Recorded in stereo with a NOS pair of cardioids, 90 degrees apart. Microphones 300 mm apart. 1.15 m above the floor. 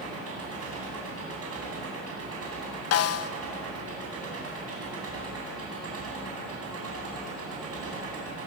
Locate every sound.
0.0 s an engine running: 50° right, 8.5 m
2.9 s a snare drum: 55° left, 1.1 m